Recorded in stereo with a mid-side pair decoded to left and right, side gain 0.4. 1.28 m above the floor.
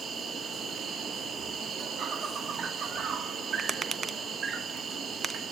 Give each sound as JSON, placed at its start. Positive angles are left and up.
{"t": 0.0, "sound": "an insect", "azimuth_deg": -55, "distance_m": 1.5}
{"t": 3.6, "sound": "tapping", "azimuth_deg": -40, "distance_m": 0.8}